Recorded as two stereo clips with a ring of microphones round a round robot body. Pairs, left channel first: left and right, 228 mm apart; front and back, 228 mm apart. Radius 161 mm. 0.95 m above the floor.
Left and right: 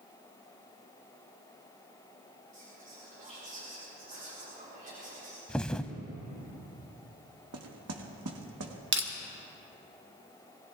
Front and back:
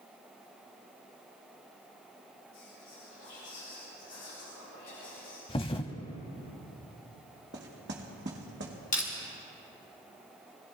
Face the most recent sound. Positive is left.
turn(degrees=-60)